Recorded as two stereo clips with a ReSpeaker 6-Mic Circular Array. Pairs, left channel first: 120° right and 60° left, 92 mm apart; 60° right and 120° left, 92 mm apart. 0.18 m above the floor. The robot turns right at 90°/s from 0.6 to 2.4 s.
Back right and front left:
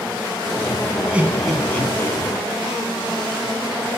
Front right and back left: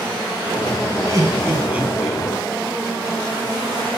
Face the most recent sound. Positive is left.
turn(degrees=-120)